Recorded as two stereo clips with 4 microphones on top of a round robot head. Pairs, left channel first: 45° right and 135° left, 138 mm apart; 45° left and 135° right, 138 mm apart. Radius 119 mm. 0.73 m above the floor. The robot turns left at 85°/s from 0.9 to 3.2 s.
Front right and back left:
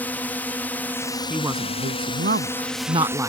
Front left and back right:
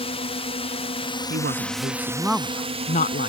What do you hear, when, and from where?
0.0 s a drone: 30° left; by 3.3 s 165° right
1.3 s a woman speaking: 135° right; by 3.3 s 60° left